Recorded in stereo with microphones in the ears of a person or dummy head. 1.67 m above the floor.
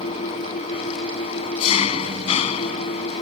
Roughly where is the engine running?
Left.